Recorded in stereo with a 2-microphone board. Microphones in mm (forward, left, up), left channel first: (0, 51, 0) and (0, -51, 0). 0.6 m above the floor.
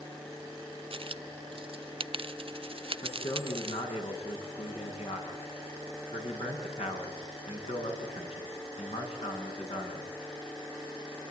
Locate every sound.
0.9 s a dropped coin: 60° right (ahead or behind), 0.6 m
3.0 s a man speaking: 80° left, 6.5 m